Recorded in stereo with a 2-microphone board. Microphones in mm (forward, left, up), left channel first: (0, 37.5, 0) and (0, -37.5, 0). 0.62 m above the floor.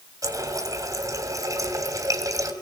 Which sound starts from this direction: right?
A running tap, at 0.2 s.